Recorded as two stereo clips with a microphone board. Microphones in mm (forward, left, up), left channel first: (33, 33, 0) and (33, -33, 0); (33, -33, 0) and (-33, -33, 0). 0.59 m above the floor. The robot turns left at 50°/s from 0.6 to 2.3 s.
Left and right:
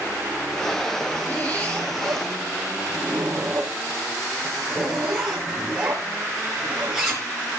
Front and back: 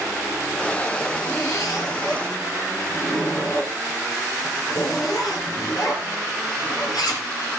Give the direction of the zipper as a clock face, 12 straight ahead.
11 o'clock.